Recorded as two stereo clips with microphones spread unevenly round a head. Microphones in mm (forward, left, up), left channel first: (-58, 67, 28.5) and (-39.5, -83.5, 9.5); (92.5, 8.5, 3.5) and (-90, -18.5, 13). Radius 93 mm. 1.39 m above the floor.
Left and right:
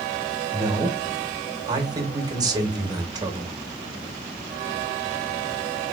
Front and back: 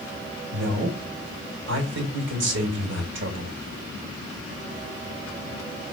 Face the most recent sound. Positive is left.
turn(degrees=-145)